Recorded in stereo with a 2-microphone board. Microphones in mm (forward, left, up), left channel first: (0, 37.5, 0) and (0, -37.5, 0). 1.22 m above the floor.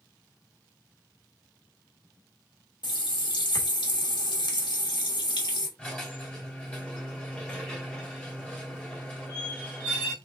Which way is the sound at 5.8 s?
15° left (ahead or behind).